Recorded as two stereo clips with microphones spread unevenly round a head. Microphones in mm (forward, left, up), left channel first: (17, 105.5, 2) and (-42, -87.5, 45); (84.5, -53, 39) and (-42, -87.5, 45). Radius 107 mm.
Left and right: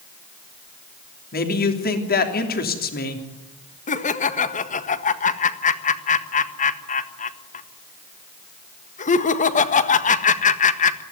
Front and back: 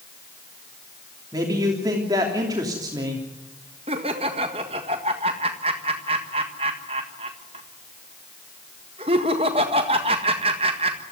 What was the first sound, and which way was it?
A man speaking, 120° left.